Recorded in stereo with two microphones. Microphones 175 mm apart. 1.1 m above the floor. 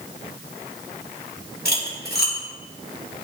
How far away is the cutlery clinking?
About 2 m.